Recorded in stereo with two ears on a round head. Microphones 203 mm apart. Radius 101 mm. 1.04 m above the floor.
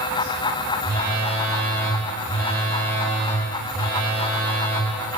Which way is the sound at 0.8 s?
10° left (ahead or behind).